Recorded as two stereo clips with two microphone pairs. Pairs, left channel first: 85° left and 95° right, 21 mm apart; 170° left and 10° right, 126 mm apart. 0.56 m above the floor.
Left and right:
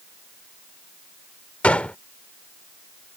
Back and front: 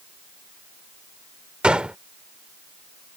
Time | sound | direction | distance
1.6 | a gunshot | 75° left | ?